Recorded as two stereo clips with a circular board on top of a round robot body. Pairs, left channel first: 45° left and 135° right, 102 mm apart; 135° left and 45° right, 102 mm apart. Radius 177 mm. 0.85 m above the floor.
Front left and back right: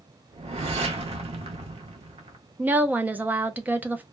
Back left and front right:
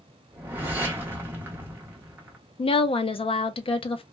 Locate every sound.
0.3 s a whoosh: 115° right, 0.7 m
2.6 s a woman speaking: 150° left, 0.5 m